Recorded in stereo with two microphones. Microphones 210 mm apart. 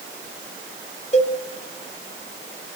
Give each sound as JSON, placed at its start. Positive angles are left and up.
{"t": 1.1, "sound": "a cowbell", "side_deg": 30, "distance_m": 0.8}